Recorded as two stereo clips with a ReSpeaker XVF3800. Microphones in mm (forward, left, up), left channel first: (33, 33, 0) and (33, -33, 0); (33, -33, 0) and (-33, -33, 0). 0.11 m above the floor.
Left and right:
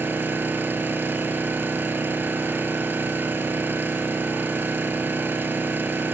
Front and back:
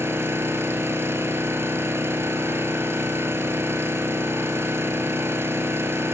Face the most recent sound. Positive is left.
turn(degrees=-140)